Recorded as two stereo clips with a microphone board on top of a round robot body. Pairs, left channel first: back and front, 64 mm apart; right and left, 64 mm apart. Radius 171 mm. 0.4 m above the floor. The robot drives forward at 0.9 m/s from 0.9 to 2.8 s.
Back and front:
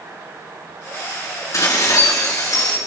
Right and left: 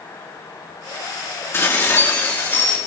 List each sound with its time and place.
1.5 s dishes clattering: 140° right, 4.5 m; by 2.8 s 150° right, 5.5 m